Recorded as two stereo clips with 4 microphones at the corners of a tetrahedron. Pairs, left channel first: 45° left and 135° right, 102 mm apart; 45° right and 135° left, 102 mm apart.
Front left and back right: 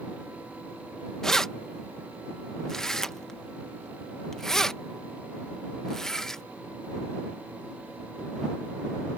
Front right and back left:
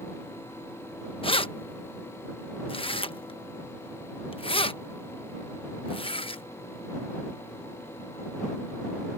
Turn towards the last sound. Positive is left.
turn(degrees=-40)